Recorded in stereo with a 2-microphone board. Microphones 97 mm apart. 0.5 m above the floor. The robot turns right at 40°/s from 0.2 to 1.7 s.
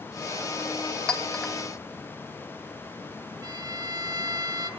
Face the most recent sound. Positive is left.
turn(degrees=-40)  # may be behind; listen again after turning